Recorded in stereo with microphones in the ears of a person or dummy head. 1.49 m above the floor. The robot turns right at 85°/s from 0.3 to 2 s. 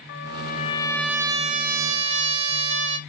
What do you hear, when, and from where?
0.1 s a trumpet: 115° left, 0.8 m; by 3.0 s 100° right, 0.8 m